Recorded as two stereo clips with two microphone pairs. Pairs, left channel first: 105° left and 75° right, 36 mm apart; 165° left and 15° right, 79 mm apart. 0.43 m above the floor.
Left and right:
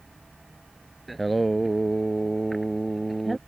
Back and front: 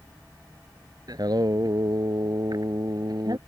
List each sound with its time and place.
1.1 s singing: 20° left